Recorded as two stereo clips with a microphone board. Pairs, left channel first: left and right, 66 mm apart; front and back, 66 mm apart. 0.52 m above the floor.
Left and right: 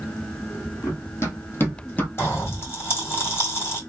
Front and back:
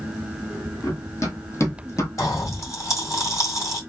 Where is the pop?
40° left, 2.0 m.